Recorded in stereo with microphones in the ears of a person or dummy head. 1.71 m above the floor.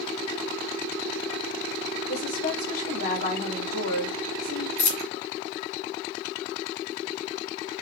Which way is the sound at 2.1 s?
75° left (ahead or behind).